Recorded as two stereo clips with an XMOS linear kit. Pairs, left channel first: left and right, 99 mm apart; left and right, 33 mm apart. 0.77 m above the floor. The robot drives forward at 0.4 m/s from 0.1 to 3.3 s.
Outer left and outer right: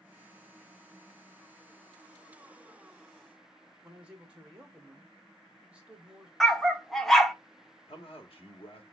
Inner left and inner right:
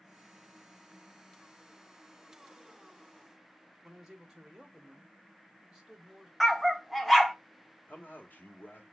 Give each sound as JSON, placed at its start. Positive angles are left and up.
{"t": 3.8, "sound": "a man speaking", "side_deg": -10, "distance_m": 1.3}
{"t": 6.4, "sound": "a dog barking", "side_deg": 0, "distance_m": 0.6}
{"t": 7.9, "sound": "a man speaking", "side_deg": 70, "distance_m": 1.2}